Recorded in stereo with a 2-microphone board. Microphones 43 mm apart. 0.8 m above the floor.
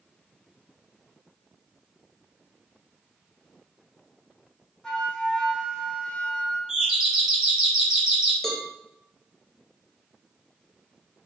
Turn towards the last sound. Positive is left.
turn(degrees=5)  # may be behind; listen again after turning